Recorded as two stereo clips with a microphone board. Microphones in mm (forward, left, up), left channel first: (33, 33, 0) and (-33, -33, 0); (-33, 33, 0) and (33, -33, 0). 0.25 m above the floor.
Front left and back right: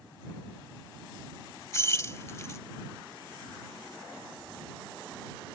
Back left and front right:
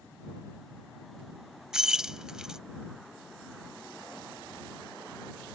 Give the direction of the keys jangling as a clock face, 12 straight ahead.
11 o'clock.